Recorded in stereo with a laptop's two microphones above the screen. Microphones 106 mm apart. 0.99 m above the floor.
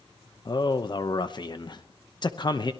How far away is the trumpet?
No trumpet in this recording.